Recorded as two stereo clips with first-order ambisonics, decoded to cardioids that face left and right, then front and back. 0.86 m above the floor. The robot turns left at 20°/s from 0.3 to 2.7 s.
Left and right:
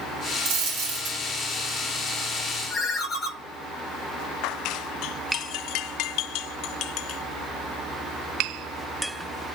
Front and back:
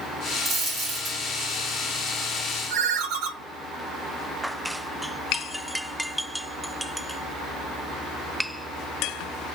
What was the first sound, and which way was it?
A dropped coin, 105° right.